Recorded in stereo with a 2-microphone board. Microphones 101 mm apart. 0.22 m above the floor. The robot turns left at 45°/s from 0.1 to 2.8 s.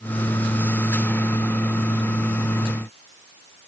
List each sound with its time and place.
Only background noise.